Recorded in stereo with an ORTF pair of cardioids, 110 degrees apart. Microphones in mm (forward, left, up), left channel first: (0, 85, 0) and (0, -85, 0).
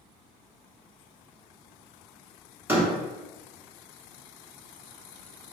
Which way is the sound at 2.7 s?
15° right.